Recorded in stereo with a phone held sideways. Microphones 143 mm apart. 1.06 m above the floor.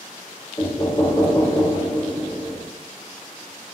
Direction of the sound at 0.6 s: 25° left (ahead or behind).